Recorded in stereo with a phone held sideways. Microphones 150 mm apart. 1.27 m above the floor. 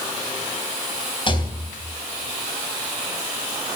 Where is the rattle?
35° left (ahead or behind), 3 m.